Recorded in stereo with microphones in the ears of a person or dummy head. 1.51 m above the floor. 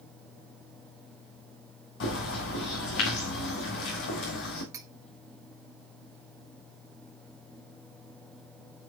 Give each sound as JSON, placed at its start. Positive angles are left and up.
{"t": 2.0, "sound": "a bird", "side_deg": 65, "distance_m": 2.5}
{"t": 4.7, "sound": "cutlery clinking", "side_deg": -20, "distance_m": 1.4}